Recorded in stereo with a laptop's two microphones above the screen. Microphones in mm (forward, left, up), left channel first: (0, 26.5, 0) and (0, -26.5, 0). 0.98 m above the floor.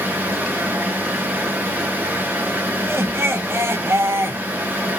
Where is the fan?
35° right (ahead or behind), 0.7 m.